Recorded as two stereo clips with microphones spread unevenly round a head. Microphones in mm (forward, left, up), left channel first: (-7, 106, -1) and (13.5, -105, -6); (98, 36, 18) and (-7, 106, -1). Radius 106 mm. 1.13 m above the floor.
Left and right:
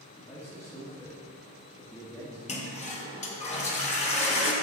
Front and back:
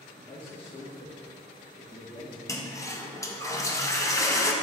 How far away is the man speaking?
About 1.7 m.